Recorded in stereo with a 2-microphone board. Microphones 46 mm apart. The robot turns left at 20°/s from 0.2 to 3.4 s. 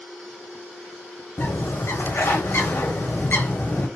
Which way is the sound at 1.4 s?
95° left.